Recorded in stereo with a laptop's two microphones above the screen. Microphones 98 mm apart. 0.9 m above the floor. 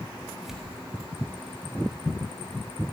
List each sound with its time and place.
0.4 s tearing paper: 5° right (ahead or behind), 1.5 m